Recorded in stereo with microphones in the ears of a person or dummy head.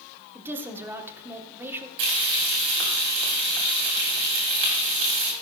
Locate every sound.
0.3 s a woman speaking: 10° right (ahead or behind), 1.5 m
2.0 s frying: 55° right (ahead or behind), 2.5 m